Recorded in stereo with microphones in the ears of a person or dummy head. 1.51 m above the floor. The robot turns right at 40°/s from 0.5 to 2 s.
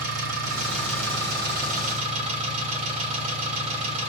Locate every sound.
0.0 s an engine running: 95° right, 3 m; by 4.1 s 35° right, 3 m